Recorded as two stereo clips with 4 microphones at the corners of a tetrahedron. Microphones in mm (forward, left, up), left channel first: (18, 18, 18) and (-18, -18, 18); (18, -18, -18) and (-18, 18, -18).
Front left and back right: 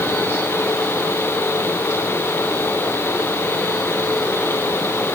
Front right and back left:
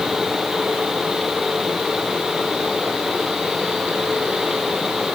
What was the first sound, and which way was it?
Only background noise.